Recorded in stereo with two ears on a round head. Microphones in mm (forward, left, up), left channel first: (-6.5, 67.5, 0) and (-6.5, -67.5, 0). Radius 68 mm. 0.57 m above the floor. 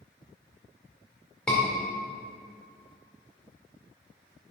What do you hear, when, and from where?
1.5 s a scream: 5° left (ahead or behind), 2.0 m